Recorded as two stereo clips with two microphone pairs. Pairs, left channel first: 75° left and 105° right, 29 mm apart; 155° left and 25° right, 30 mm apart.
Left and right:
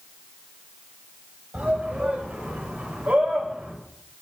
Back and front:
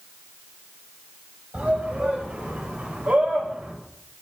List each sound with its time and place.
1.5 s a shout: 70° right, 8 m; by 3.7 s 65° right, 6.5 m